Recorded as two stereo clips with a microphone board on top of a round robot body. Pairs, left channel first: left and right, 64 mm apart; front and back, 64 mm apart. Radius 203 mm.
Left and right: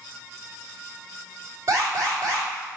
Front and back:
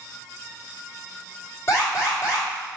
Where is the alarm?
45° right, 3 m.